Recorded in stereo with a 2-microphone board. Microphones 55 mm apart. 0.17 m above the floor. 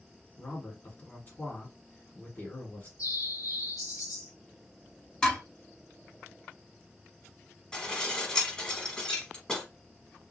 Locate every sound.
0.4 s a man speaking: 35° left (ahead or behind), 1.5 m
3.0 s a bird: 85° left, 1.0 m
5.2 s dishes clattering: 15° left (ahead or behind), 1.0 m
7.7 s dishes clattering: 15° left (ahead or behind), 0.9 m